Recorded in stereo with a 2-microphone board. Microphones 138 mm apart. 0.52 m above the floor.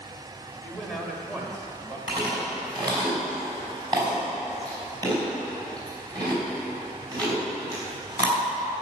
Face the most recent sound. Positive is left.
turn(degrees=-25)  # may be behind; listen again after turning